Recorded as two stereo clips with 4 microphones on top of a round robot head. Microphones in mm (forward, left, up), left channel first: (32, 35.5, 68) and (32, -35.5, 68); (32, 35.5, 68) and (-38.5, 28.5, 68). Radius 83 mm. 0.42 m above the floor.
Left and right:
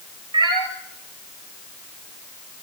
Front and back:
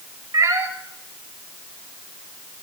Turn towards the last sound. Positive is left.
turn(degrees=-120)